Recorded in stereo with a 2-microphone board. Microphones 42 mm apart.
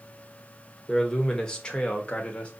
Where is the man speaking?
10° left (ahead or behind), 1.1 m; by 2.5 s 30° left (ahead or behind), 1.0 m.